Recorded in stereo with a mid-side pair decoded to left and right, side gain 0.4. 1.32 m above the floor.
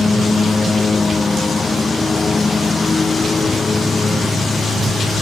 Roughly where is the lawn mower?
Ahead left.